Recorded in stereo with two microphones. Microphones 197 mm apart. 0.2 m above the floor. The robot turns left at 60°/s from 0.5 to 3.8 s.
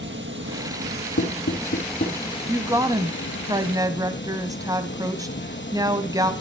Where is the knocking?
80° left, 4 m; by 2.2 s 35° left (ahead or behind), 4 m.